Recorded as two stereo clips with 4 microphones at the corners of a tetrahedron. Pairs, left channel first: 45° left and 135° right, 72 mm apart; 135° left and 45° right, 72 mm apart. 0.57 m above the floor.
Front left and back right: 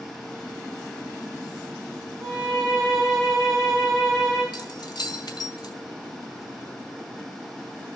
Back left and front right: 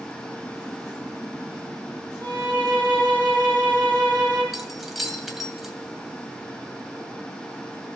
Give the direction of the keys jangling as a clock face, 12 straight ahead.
11 o'clock.